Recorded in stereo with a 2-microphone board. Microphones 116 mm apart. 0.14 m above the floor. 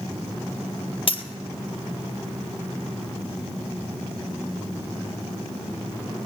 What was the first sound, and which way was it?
A dropped coin, 50° left (ahead or behind).